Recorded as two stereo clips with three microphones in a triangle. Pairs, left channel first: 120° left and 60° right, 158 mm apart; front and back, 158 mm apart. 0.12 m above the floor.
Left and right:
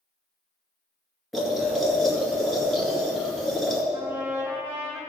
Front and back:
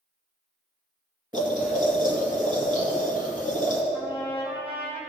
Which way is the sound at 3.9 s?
130° right.